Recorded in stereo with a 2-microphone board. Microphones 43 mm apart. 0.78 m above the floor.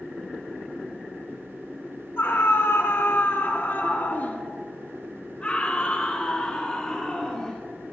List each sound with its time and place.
2.2 s a scream: 75° left (ahead or behind), 2.5 m; by 7.6 s 15° left (ahead or behind), 5 m